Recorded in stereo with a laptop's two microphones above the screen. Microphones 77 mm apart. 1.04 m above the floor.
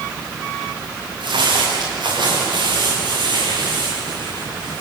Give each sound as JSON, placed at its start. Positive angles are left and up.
{"t": 1.2, "sound": "footsteps", "side_deg": -80, "distance_m": 8.0}